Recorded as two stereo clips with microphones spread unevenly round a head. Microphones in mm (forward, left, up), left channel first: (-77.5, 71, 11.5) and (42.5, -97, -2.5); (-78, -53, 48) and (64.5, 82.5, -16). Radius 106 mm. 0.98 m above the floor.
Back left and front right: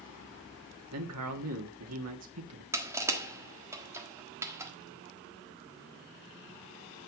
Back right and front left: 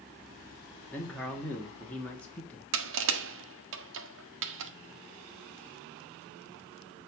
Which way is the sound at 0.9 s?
50° right.